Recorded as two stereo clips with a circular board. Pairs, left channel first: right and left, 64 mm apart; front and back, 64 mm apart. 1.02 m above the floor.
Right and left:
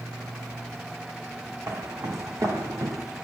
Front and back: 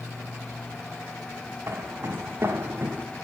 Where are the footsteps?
130° left, 3 m; by 3.0 s 120° left, 2.5 m.